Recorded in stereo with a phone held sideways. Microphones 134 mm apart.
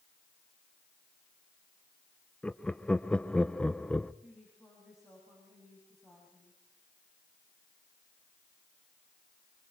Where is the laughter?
5° left (ahead or behind), 0.6 m.